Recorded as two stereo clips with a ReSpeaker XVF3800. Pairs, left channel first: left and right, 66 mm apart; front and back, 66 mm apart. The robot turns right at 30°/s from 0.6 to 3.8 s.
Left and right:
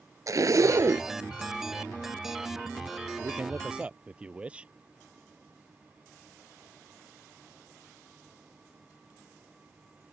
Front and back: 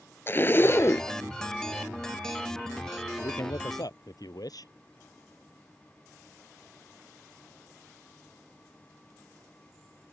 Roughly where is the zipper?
Ahead right.